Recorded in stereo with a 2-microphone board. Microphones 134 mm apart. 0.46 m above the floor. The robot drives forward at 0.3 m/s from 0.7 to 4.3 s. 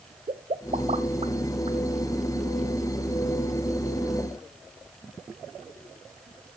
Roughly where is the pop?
Right.